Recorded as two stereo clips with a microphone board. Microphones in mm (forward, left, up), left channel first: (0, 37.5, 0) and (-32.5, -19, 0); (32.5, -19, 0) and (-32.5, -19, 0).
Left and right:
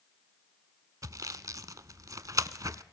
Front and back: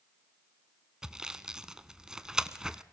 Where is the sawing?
100° right, 0.7 m.